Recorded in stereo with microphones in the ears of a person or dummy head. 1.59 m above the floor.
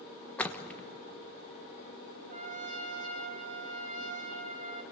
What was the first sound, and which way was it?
A splash, 10° left (ahead or behind).